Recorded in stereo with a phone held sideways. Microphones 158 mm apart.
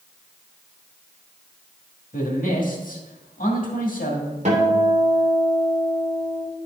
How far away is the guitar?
About 2.5 m.